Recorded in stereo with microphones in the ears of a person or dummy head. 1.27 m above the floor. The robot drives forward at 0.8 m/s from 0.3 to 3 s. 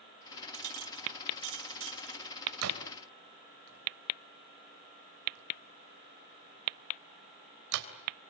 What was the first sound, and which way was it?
A clink, 80° right.